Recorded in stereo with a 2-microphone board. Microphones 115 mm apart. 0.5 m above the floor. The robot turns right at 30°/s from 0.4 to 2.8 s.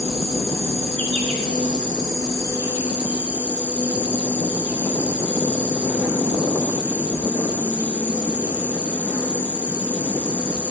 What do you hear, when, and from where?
0.0 s an insect: 90° right, 6.5 m; by 10.7 s 15° right, 6.5 m